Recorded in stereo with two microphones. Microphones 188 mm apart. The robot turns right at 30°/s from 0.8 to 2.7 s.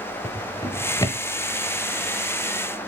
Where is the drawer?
15° left (ahead or behind), 0.9 m; by 1.2 s 25° left (ahead or behind), 0.9 m.